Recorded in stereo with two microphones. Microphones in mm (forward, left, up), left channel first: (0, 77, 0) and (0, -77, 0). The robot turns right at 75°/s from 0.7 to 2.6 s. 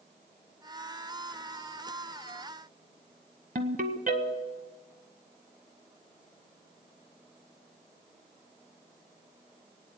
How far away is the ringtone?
About 1.0 m.